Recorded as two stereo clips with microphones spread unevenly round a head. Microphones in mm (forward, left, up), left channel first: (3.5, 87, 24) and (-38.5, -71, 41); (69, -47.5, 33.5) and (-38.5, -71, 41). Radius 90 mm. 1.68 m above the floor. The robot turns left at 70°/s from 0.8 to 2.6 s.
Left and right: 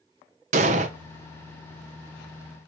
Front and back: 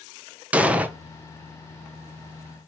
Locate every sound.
0.5 s an explosion: 100° right, 0.8 m; by 0.9 s 105° right, 0.8 m